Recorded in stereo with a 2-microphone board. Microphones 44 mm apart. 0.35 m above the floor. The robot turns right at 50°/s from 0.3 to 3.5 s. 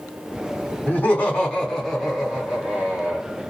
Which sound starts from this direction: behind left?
Laughter, at 0.9 s.